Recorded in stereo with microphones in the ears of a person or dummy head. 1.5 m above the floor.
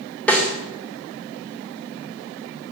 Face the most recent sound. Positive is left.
turn(degrees=5)  # may be behind; listen again after turning